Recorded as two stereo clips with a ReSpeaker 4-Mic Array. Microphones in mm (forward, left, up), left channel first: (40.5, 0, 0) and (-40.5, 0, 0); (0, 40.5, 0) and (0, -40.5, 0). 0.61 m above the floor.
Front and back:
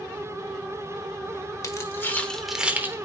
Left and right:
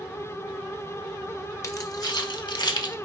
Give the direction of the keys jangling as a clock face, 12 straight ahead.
11 o'clock.